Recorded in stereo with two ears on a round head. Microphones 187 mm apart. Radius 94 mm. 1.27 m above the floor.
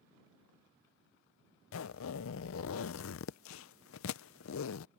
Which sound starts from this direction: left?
A zipper, at 1.7 s.